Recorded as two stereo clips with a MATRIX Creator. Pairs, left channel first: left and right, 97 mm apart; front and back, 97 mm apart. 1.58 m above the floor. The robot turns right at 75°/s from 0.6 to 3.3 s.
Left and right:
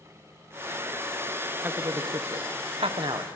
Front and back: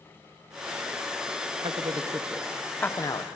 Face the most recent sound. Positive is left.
turn(degrees=-35)